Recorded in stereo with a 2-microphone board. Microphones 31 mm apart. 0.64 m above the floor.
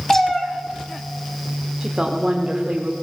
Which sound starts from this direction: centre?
A cat meowing, at 0.1 s.